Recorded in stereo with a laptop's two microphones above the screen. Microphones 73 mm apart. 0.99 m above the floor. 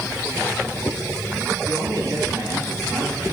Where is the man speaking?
55° right (ahead or behind), 7 m.